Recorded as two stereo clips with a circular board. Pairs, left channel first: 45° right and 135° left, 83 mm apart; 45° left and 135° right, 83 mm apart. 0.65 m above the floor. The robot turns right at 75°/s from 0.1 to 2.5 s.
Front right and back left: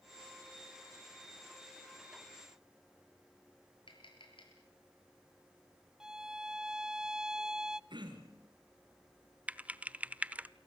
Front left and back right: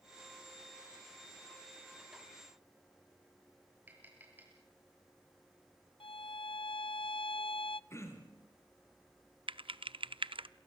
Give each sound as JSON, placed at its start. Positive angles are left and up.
{"t": 3.9, "sound": "tapping", "azimuth_deg": -65, "distance_m": 7.5}
{"t": 6.0, "sound": "a violin", "azimuth_deg": 55, "distance_m": 0.5}
{"t": 7.9, "sound": "throat clearing", "azimuth_deg": 105, "distance_m": 4.0}
{"t": 9.5, "sound": "typing on a keyboard", "azimuth_deg": -150, "distance_m": 0.7}